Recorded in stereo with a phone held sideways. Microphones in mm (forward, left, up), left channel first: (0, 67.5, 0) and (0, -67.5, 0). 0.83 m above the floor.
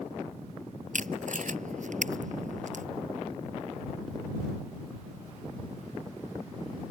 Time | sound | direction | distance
0.9 | tape being pulled | 65° right (ahead or behind) | ?